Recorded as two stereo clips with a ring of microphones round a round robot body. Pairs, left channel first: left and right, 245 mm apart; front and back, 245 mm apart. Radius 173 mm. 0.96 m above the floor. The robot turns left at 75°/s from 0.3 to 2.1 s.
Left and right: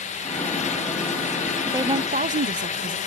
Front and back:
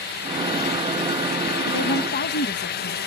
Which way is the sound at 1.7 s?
5° right.